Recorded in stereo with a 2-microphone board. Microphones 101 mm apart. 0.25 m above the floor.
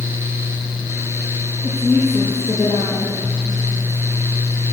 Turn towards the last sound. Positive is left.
turn(degrees=20)  # may be behind; listen again after turning